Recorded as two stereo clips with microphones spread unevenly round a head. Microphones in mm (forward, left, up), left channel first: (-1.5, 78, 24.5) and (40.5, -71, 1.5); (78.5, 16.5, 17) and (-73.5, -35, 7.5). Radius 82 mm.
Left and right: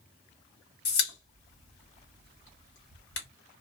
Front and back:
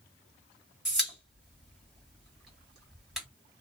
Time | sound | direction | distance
0.8 | a pop | 110° left | 1.6 m